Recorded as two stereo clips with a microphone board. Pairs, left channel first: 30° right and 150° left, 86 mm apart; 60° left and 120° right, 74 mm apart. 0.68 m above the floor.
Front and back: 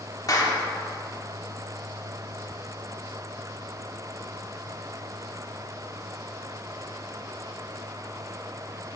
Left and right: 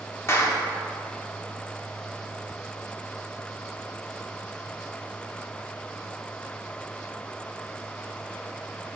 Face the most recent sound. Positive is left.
turn(degrees=10)